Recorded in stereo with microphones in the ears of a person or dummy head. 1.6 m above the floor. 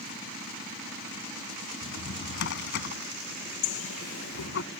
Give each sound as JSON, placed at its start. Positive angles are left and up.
{"t": 1.8, "sound": "a drawer", "side_deg": 65}
{"t": 3.6, "sound": "a bird", "side_deg": 80}